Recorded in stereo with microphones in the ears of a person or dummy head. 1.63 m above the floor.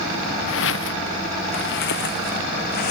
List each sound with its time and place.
0.5 s footsteps: 65° left (ahead or behind); by 2.9 s 45° left (ahead or behind)